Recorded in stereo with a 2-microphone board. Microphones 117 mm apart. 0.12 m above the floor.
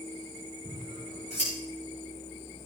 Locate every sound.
0.7 s scissors: 80° left, 8.5 m